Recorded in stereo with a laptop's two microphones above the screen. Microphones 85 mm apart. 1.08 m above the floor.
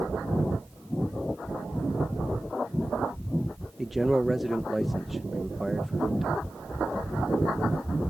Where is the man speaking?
Centre (ahead or behind).